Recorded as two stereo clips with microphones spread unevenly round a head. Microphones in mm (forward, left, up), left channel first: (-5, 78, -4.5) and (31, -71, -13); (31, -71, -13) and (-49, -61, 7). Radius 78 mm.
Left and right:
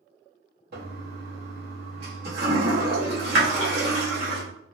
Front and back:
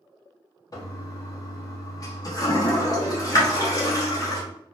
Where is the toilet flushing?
55° right, 1.1 m.